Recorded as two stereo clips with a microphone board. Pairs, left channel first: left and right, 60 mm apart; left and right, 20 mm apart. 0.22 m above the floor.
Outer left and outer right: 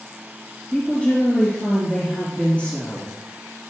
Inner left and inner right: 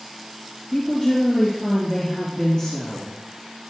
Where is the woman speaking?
25° left (ahead or behind), 3.5 m.